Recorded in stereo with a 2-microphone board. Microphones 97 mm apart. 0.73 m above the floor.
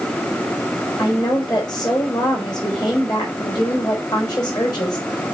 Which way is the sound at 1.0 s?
45° left (ahead or behind).